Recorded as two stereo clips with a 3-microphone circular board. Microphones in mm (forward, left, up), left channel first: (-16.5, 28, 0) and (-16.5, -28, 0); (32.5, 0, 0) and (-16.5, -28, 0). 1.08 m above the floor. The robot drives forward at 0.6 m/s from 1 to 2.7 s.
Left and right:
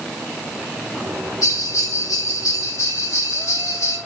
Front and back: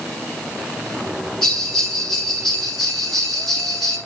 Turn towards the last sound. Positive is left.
turn(degrees=115)